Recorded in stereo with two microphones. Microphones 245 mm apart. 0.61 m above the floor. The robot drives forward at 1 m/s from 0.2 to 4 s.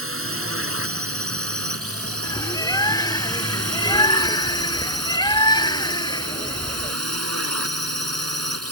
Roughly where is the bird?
Centre.